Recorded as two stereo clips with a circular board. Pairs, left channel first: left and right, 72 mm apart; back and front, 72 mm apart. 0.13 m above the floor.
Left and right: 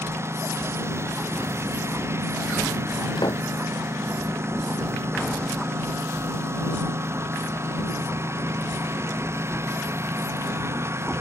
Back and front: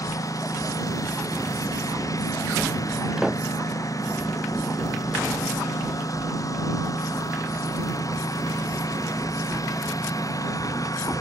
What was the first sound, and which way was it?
A lawn mower, 140° right.